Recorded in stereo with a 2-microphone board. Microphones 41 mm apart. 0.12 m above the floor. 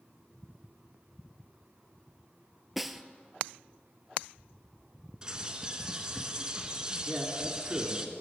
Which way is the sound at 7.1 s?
20° right (ahead or behind).